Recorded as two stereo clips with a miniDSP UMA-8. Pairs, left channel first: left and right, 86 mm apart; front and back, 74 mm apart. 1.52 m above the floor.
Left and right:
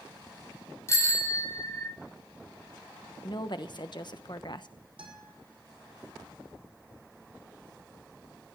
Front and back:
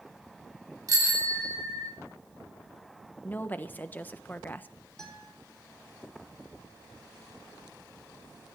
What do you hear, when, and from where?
0.9 s a bicycle bell: 145° left, 3 m; by 1.9 s 140° left, 3.5 m
3.2 s a woman speaking: 65° left, 1.0 m
5.0 s a guitar: 80° right, 4.5 m